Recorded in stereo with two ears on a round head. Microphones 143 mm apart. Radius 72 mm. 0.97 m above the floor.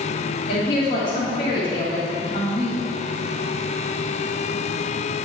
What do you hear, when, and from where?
0.5 s a woman speaking: 35° left (ahead or behind), 1.9 m